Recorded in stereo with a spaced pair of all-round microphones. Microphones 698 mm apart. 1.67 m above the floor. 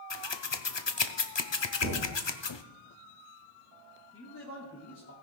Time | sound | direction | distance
0.1 | scissors | 40° left (ahead or behind) | 0.6 m
1.8 | a thud | 25° right (ahead or behind) | 3 m
4.1 | a man speaking | 20° left (ahead or behind) | 2.5 m